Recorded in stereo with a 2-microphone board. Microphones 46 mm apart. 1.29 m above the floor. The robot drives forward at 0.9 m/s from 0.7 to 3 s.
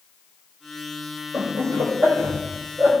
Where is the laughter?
80° right, 5.5 m; by 2.9 s 65° right (ahead or behind), 6 m.